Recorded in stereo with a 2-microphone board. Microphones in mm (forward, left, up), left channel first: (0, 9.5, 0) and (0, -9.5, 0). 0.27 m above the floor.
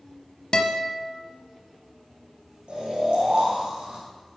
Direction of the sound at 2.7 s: 70° right (ahead or behind).